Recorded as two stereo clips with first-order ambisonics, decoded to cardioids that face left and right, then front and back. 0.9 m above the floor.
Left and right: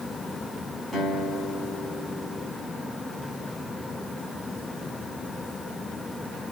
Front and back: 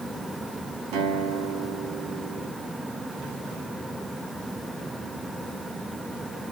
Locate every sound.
0.9 s a guitar: 175° right, 6 m